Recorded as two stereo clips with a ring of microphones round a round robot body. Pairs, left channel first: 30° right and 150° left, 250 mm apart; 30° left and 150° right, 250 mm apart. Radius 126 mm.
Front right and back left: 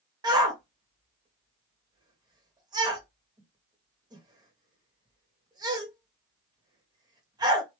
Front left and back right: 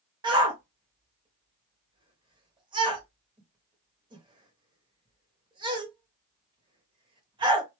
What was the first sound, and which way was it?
A shout, 175° right.